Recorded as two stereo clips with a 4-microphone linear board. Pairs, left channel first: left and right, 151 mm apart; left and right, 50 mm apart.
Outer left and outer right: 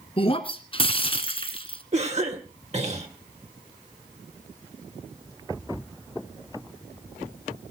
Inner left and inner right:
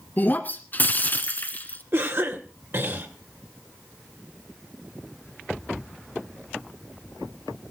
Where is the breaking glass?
35° left (ahead or behind), 1.5 m.